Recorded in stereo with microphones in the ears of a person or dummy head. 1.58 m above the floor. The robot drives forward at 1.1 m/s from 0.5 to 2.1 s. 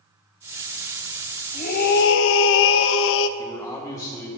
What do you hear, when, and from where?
1.5 s a scream: 40° left (ahead or behind), 1.0 m; by 3.3 s 75° left (ahead or behind), 0.6 m
3.4 s a man speaking: 15° left (ahead or behind), 2 m